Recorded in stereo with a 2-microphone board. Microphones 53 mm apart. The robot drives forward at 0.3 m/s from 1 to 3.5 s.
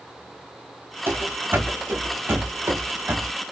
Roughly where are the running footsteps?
Right.